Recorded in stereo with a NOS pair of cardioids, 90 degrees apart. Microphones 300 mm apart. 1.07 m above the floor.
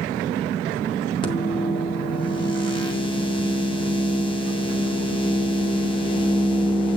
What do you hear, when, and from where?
1.2 s a microwave: 15° left, 2.5 m